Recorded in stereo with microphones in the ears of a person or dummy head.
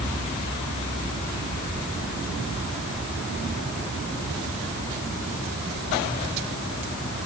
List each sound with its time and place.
Only background noise.